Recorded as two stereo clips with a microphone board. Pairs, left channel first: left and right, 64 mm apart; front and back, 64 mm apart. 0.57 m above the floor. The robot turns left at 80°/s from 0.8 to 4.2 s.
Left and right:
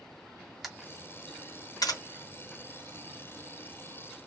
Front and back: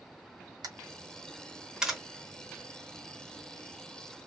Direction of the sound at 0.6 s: 175° right.